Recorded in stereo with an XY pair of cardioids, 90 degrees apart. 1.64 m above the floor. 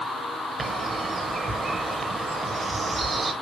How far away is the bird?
About 1.3 m.